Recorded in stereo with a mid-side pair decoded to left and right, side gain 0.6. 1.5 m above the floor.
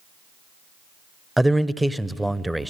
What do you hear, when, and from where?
1.4 s a man speaking: 5° right, 0.6 m